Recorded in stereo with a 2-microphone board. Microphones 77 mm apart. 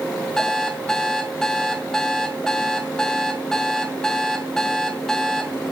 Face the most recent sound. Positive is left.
turn(degrees=5)  # may be behind; listen again after turning